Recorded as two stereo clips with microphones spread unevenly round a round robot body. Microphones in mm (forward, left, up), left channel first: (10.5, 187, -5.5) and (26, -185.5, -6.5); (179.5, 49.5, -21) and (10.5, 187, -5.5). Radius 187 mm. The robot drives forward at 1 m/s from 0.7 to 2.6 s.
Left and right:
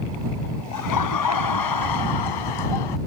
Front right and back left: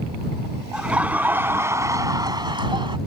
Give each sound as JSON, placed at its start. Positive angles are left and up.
{"t": 0.7, "sound": "laughter", "azimuth_deg": 55}